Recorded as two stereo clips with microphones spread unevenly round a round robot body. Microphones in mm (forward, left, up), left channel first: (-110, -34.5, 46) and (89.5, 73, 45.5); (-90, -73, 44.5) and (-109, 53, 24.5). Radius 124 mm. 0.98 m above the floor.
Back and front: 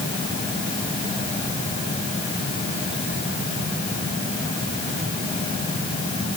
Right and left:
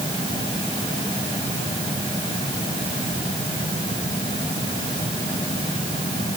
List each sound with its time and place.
Only background noise.